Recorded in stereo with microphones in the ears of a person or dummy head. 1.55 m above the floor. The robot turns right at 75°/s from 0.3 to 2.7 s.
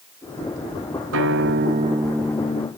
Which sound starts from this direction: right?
A guitar, at 1.1 s.